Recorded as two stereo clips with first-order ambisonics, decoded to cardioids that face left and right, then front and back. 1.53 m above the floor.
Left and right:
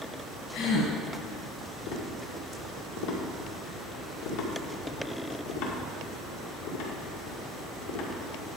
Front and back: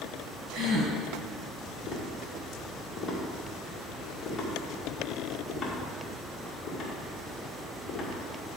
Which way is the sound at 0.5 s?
125° left.